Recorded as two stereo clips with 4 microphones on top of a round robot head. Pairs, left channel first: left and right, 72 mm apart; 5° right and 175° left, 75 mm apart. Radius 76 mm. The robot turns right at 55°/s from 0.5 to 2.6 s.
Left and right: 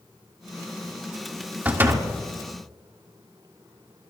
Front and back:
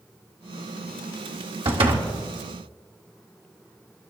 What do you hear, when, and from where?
1.6 s a door slam: 155° right, 1.7 m; by 2.1 s 130° right, 1.7 m